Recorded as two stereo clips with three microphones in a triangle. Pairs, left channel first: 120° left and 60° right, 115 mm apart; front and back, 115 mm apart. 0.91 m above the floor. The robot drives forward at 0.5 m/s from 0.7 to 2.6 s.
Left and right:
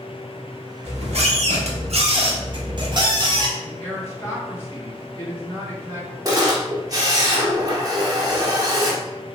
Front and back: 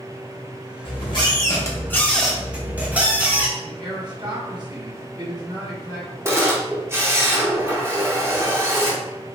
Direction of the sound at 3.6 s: 175° left.